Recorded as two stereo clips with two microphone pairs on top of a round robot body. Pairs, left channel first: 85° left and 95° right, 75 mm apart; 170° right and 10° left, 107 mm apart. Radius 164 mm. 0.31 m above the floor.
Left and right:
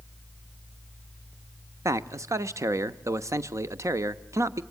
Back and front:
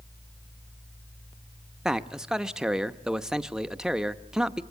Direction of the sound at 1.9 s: 80° right.